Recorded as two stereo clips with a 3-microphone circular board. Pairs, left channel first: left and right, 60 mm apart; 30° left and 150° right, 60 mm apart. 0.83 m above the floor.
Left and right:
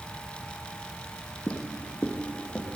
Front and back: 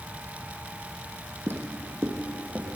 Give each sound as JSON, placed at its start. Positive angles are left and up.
{"t": 1.5, "sound": "footsteps", "azimuth_deg": 160, "distance_m": 2.5}